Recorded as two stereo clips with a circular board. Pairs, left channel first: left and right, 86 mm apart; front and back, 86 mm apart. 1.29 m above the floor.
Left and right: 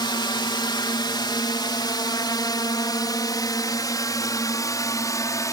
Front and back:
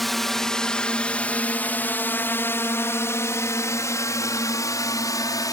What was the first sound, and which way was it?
A drone, 90° left.